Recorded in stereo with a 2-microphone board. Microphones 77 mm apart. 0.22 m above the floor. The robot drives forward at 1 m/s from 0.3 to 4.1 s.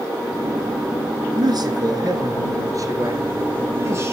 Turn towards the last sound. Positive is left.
turn(degrees=-35)  # may be behind; listen again after turning